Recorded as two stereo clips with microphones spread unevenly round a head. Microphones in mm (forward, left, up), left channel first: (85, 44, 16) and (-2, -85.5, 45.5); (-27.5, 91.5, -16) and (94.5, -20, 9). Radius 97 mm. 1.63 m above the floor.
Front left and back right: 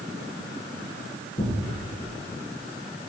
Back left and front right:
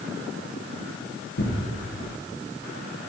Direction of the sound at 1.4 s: 120° left.